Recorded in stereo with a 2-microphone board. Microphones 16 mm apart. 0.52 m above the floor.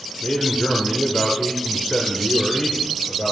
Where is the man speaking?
60° left (ahead or behind), 1.3 m.